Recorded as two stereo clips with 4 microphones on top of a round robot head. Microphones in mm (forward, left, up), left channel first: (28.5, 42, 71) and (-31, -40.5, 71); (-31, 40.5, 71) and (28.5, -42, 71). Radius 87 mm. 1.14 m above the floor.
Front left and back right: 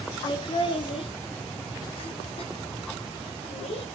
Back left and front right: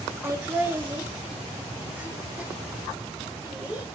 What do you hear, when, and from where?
0.2 s laughter: 10° left, 2.5 m; by 3.8 s 25° left, 7.5 m